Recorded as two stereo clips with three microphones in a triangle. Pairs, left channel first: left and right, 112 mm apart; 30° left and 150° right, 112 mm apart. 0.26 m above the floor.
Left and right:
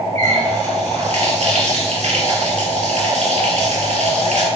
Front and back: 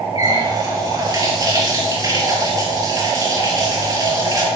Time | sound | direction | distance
0.1 | a running tap | 95° right | 3.5 m